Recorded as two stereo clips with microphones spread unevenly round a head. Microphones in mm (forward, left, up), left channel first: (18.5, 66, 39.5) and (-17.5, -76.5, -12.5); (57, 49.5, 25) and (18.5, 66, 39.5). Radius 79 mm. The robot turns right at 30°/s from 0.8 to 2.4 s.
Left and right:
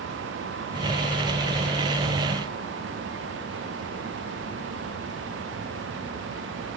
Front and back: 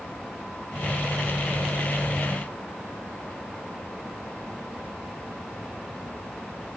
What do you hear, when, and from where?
Only background noise.